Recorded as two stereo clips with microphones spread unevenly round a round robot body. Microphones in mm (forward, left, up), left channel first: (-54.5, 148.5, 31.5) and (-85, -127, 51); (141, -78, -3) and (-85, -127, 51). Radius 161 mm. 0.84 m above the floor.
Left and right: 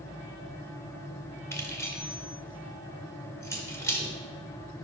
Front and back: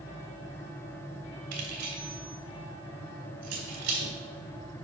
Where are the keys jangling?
165° left, 1.7 m.